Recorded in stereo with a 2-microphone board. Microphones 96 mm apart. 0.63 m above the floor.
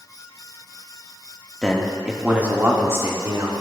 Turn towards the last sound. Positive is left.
turn(degrees=-35)  # may be behind; listen again after turning